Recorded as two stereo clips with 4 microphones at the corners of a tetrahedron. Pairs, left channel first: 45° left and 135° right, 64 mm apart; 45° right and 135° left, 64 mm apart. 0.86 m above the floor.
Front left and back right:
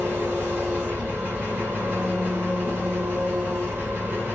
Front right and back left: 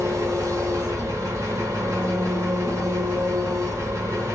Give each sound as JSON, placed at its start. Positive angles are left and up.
{"t": 0.0, "sound": "an engine running", "azimuth_deg": 170, "distance_m": 1.7}